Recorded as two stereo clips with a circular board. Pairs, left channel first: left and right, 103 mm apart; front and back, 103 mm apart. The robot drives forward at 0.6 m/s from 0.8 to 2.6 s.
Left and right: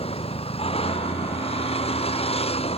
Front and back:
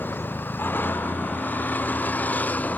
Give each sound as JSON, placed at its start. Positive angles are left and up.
{"t": 0.0, "sound": "a vehicle", "azimuth_deg": 70}